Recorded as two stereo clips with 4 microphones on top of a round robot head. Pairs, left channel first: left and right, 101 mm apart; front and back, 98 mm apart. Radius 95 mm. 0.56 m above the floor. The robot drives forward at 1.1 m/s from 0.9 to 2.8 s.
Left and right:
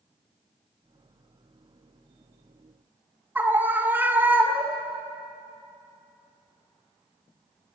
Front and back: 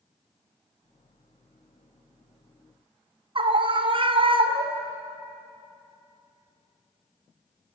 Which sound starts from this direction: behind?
A scream, at 3.4 s.